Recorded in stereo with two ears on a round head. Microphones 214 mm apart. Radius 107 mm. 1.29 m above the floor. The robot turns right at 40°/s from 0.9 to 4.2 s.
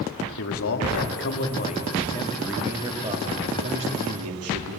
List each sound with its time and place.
0.4 s a man speaking: 115° left, 2.5 m; by 4.8 s 110° right, 2.5 m